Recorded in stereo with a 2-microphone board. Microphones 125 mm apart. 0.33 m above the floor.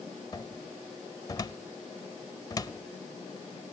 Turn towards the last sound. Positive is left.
turn(degrees=30)  # may be behind; listen again after turning